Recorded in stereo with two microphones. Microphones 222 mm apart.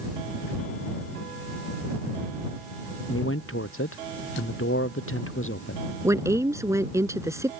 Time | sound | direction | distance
3.1 | a man speaking | 80° left | ?
6.0 | a woman speaking | 15° right (ahead or behind) | ?